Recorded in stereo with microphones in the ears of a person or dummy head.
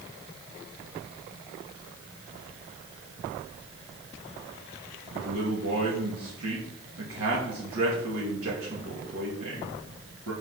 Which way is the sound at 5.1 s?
85° right.